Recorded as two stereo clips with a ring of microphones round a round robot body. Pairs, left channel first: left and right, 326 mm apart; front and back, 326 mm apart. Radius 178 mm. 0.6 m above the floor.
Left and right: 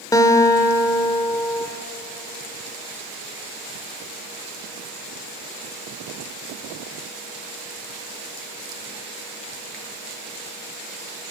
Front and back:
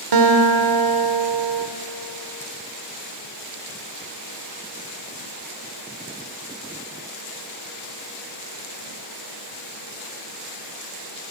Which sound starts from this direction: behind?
A guitar, at 0.1 s.